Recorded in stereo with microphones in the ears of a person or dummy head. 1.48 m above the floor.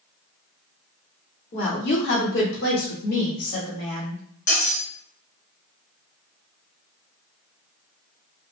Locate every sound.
1.5 s a woman speaking: 40° left (ahead or behind), 0.9 m; by 4.2 s 50° left (ahead or behind), 1.7 m
4.5 s cutlery clinking: 50° left (ahead or behind), 1.6 m